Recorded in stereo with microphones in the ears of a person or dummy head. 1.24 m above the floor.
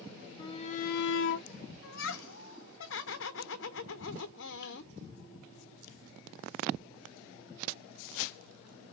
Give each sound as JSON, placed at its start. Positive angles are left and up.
{"t": 0.4, "sound": "a shout", "side_deg": 25, "distance_m": 0.6}
{"t": 1.8, "sound": "laughter", "side_deg": 65, "distance_m": 0.7}